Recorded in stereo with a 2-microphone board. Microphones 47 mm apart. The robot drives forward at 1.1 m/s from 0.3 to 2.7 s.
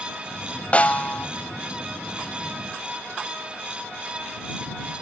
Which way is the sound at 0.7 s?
30° left (ahead or behind).